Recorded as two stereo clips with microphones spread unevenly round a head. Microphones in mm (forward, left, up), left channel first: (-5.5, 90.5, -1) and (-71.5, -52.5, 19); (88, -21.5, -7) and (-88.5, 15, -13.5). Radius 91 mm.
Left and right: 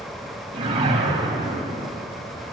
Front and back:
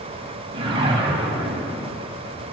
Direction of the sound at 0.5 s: 135° right.